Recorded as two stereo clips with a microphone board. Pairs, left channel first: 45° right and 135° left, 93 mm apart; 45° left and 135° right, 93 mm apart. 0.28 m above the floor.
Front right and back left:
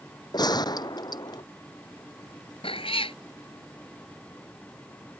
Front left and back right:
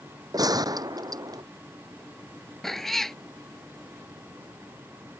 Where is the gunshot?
85° right.